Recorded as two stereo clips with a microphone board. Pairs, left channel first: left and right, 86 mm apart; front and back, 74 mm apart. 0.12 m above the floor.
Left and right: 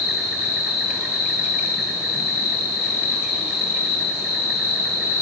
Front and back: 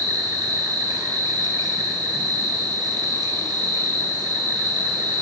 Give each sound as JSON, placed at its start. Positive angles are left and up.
{"t": 0.0, "sound": "an insect", "azimuth_deg": -165, "distance_m": 2.5}